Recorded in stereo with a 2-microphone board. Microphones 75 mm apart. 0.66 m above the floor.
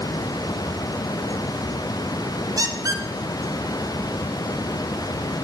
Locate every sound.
2.6 s a squeak: 55° right (ahead or behind), 0.6 m